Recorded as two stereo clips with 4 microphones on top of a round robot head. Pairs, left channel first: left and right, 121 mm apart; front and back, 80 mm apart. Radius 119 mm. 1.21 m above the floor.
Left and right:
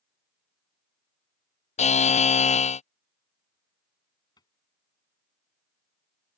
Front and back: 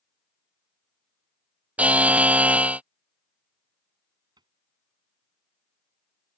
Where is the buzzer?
105° left.